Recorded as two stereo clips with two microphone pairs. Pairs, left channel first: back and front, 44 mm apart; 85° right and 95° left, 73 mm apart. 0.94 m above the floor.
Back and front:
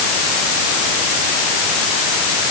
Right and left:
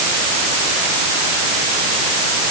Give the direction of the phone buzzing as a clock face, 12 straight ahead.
I don't hear a phone buzzing.